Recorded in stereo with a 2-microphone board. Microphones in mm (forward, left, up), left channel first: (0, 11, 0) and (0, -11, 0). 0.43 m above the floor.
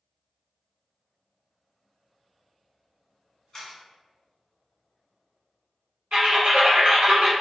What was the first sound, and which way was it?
A camera shutter, 25° left (ahead or behind).